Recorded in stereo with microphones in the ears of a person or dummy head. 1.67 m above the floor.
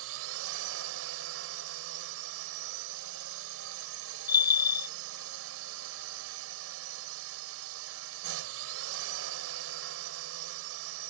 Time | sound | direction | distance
0.0 | a drone | 75° right (ahead or behind) | ?
4.3 | a bell | 30° left (ahead or behind) | ?